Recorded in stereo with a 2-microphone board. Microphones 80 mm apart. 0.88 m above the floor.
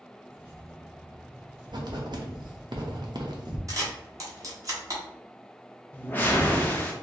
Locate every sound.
0.3 s keys jangling: 20° right (ahead or behind), 1.5 m; by 2.7 s 30° right (ahead or behind), 3 m
1.7 s writing: 60° right (ahead or behind), 0.7 m
3.7 s a camera shutter: 45° right (ahead or behind), 1.1 m
5.9 s a whoosh: 20° left (ahead or behind), 0.6 m